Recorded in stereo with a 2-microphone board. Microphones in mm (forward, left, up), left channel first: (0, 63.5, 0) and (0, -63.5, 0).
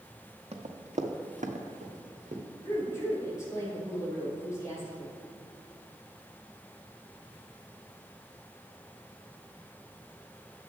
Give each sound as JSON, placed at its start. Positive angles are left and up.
{"t": 0.5, "sound": "running footsteps", "side_deg": -60, "distance_m": 1.4}
{"t": 2.6, "sound": "a woman speaking", "side_deg": 25, "distance_m": 3.5}